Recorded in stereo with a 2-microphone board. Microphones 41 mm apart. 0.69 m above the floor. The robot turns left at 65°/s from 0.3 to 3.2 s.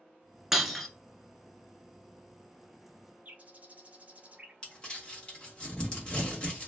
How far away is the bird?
About 0.6 m.